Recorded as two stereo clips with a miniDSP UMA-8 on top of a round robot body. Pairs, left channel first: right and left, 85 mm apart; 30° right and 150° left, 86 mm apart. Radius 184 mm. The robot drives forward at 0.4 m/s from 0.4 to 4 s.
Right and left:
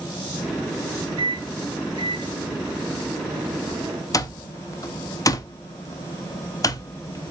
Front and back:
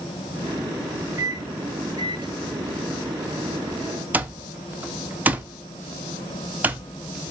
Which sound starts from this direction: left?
A microwave, at 1.2 s.